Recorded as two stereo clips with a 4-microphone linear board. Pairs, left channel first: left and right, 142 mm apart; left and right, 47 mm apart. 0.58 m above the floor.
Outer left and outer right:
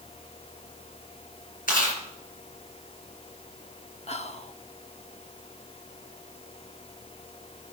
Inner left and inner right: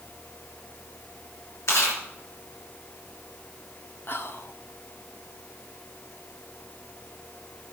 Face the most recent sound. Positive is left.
turn(degrees=50)  # may be behind; listen again after turning